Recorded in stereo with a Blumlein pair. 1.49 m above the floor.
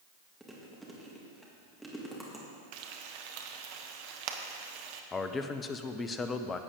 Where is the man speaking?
20° left, 0.7 m.